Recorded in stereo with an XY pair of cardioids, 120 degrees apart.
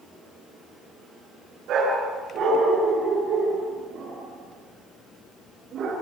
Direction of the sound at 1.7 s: 65° right.